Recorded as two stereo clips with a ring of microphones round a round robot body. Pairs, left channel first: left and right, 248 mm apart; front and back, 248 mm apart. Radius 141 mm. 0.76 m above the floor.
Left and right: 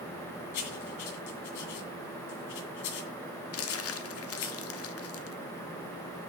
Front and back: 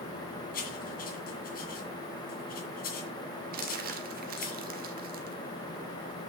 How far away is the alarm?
No alarm in this recording.